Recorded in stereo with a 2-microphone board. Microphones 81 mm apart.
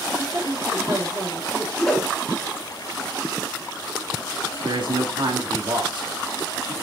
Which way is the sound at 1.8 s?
Centre (ahead or behind).